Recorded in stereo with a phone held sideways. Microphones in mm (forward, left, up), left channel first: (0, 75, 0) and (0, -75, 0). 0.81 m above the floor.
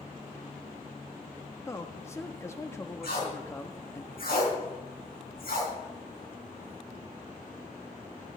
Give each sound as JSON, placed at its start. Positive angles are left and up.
{"t": 1.7, "sound": "a man speaking", "side_deg": 20, "distance_m": 1.1}
{"t": 3.0, "sound": "tape being pulled", "side_deg": 85, "distance_m": 4.5}